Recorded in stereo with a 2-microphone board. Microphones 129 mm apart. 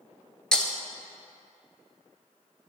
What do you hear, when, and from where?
0.5 s breaking glass: 5° left (ahead or behind), 1.0 m